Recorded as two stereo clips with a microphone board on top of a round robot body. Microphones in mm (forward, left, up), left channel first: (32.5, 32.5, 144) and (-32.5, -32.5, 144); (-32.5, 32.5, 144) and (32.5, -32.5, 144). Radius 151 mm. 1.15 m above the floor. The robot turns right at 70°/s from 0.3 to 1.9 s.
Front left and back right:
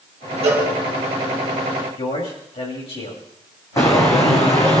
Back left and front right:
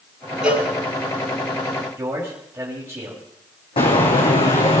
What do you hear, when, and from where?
0.4 s a cowbell: 125° right, 5.5 m; by 0.7 s 105° right, 5.5 m
2.0 s a man speaking: 20° left, 6.5 m
3.8 s footsteps: 105° left, 2.5 m; by 4.8 s 100° left, 3.5 m